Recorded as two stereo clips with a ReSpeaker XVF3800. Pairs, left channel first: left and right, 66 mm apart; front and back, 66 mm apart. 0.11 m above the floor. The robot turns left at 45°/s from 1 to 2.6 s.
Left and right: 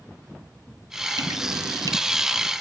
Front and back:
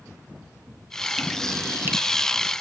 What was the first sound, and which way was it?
Dripping, 95° right.